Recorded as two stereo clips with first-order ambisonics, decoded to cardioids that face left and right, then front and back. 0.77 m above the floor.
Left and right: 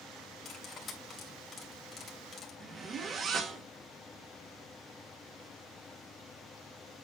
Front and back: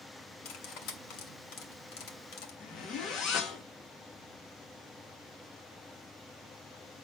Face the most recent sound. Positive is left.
turn(degrees=-35)